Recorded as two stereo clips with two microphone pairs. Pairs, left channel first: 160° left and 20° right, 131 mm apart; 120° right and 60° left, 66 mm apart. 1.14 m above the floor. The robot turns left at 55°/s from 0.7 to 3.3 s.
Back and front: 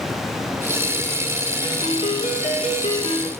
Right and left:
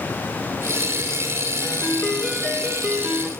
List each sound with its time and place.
1.6 s a ringtone: 155° right, 7 m; by 3.3 s 115° left, 7 m